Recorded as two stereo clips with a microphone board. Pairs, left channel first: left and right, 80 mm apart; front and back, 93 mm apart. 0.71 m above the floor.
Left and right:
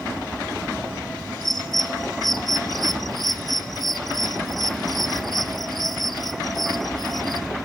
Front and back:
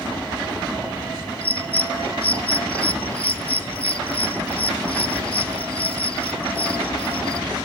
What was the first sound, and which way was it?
A bird, straight ahead.